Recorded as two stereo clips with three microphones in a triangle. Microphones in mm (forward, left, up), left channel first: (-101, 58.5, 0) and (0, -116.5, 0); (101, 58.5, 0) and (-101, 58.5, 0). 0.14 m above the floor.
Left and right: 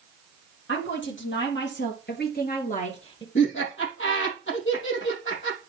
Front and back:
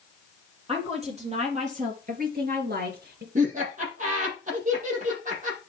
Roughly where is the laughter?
Behind left.